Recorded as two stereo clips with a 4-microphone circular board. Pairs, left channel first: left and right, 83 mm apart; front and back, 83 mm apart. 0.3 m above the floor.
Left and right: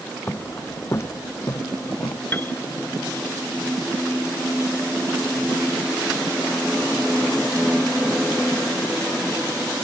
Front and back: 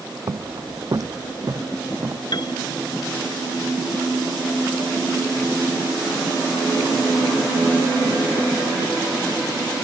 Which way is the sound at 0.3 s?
155° left.